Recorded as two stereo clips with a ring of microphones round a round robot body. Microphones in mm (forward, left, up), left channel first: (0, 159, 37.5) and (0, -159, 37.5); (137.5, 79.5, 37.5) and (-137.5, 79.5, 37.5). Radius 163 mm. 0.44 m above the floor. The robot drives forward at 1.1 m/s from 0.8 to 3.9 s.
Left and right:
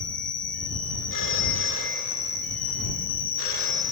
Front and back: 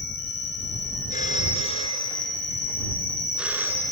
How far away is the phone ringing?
About 4.5 m.